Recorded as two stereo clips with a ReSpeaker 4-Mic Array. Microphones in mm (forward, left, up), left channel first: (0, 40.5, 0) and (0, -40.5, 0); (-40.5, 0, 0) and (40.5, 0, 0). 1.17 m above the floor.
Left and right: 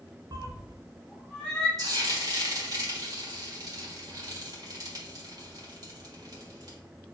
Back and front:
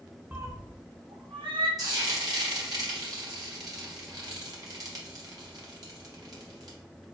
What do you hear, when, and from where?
0.3 s a cat meowing: 70° right, 0.6 m; by 1.7 s 10° left, 1.5 m
1.8 s frying: 45° right, 1.6 m